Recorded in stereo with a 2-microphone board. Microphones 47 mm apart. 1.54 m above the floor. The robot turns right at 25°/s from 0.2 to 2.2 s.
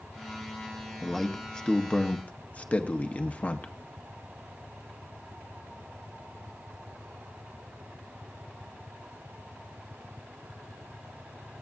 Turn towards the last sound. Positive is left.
turn(degrees=30)  # may be behind; listen again after turning